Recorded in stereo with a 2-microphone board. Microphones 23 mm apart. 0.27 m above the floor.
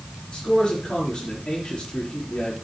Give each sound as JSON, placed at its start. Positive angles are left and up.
{"t": 0.3, "sound": "a man speaking", "side_deg": 55, "distance_m": 5.0}